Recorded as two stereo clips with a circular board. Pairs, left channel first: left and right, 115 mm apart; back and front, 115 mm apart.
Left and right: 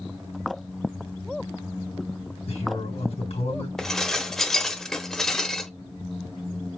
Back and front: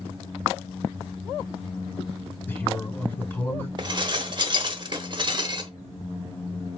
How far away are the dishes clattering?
About 1.0 m.